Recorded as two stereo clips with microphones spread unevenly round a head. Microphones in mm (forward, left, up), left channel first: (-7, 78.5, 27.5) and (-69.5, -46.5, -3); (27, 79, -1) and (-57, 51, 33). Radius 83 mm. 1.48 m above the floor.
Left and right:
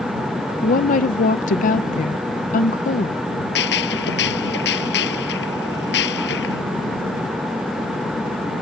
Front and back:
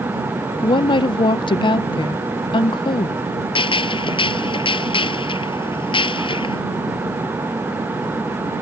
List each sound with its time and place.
0.6 s a woman speaking: 60° left
3.5 s a gunshot: 45° left